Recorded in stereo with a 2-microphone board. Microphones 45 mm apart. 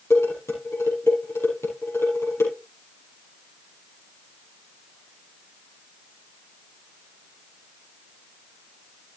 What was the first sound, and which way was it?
Dishes clattering, 80° left.